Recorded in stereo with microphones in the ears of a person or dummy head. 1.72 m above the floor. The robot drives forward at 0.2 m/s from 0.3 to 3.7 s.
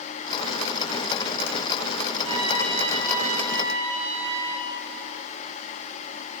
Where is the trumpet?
35° right (ahead or behind), 3.5 m; by 4.7 s 40° right (ahead or behind), 3 m.